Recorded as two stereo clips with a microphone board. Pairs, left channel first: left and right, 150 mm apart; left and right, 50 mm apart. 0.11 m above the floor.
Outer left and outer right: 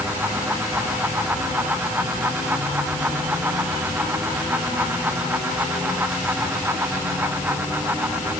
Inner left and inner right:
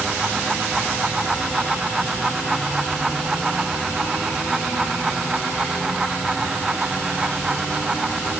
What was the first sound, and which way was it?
Only background noise.